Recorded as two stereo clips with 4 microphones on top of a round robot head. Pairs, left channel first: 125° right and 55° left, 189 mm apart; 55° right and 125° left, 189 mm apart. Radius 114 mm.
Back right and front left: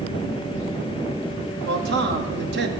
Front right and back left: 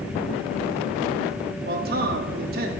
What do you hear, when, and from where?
1.6 s a man speaking: 85° left, 0.7 m